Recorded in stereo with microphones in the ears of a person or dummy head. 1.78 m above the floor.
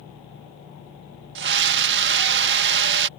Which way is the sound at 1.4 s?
60° right (ahead or behind).